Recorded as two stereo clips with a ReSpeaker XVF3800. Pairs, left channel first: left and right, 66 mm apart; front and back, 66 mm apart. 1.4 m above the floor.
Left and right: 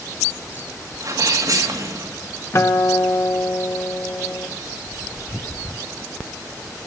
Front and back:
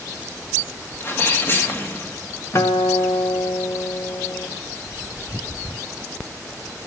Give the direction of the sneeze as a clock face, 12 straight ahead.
2 o'clock.